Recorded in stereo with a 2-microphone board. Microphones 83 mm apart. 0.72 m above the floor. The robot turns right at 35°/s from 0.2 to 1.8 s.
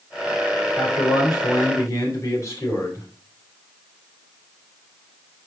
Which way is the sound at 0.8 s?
100° left.